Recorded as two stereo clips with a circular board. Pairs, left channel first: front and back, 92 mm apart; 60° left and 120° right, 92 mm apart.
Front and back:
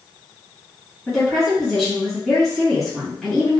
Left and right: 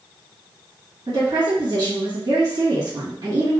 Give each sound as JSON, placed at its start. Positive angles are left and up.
{"t": 1.1, "sound": "a woman speaking", "azimuth_deg": -85, "distance_m": 1.6}